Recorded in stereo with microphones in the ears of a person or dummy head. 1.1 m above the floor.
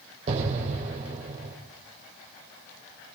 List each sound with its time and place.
0.3 s an explosion: 45° right (ahead or behind), 4 m